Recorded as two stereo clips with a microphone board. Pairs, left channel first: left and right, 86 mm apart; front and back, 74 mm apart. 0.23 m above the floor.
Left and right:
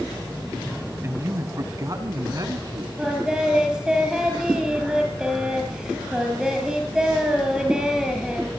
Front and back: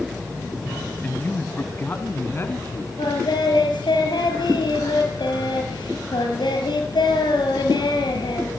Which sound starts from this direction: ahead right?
A man speaking, at 1.0 s.